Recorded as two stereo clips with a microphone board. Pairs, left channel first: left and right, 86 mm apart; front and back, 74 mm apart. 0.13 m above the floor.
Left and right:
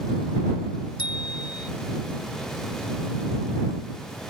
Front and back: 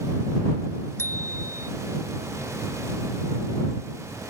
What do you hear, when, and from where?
1.0 s a bicycle bell: 55° left